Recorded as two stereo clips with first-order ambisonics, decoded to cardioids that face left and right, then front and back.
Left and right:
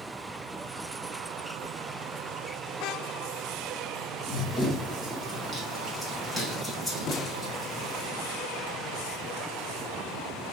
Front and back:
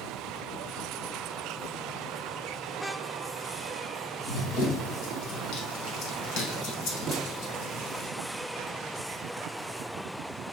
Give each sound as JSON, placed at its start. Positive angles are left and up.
{"t": 4.3, "sound": "running footsteps", "azimuth_deg": 15, "distance_m": 2.5}
{"t": 7.1, "sound": "a snare drum", "azimuth_deg": 120, "distance_m": 0.7}